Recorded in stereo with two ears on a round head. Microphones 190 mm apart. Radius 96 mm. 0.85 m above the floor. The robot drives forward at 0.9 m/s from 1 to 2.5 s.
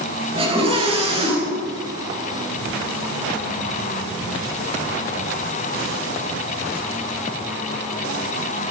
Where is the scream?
30° right (ahead or behind), 9.5 m; by 1.7 s 25° right (ahead or behind), 10 m.